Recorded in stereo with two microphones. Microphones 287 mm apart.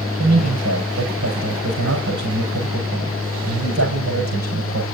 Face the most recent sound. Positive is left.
turn(degrees=-70)  # may be behind; listen again after turning